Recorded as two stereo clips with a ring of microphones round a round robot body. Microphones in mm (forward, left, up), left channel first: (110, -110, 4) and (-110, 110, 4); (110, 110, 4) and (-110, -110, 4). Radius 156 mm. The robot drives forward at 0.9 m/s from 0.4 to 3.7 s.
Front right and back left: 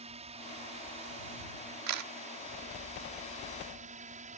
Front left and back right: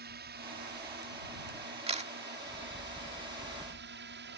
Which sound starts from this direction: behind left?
A camera shutter, at 1.9 s.